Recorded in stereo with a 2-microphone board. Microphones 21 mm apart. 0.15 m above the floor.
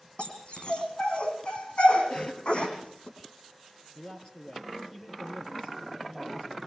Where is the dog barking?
50° left (ahead or behind), 4 m.